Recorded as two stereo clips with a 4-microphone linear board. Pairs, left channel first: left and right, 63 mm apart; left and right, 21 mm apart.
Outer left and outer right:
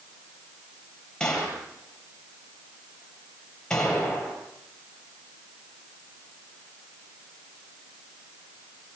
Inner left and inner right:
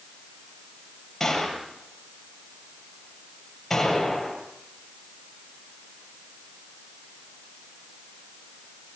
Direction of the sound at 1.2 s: 10° left (ahead or behind).